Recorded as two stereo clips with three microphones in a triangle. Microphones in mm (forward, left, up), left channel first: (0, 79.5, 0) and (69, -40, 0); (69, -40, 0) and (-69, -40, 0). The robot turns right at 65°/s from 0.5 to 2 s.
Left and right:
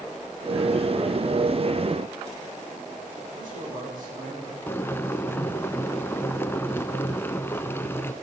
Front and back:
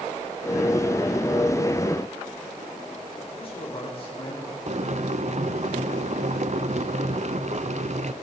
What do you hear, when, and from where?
3.3 s a man speaking: 45° right, 9.5 m
4.7 s boiling: 170° right, 0.7 m